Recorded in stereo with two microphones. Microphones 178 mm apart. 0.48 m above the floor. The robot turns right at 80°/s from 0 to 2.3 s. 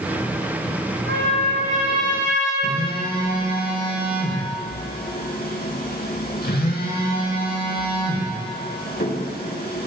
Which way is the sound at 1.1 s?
100° right.